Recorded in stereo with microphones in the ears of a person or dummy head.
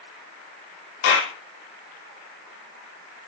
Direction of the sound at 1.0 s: 80° left.